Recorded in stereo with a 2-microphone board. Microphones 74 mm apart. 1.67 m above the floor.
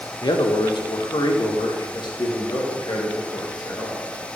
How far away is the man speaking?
About 1.0 m.